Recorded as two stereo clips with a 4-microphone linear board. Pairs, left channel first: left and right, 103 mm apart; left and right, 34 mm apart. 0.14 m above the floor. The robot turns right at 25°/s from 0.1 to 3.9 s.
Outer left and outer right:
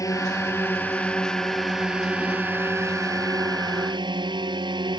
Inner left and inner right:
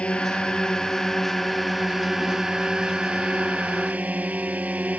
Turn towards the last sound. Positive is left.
turn(degrees=-120)